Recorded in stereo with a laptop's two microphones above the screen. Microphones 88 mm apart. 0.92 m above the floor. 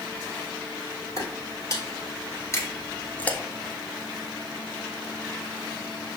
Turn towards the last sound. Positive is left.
turn(degrees=40)  # may be behind; listen again after turning